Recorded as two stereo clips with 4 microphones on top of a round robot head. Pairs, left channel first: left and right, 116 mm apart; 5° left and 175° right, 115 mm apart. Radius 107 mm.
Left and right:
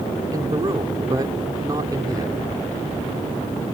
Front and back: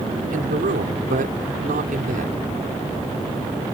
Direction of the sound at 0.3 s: 160° right.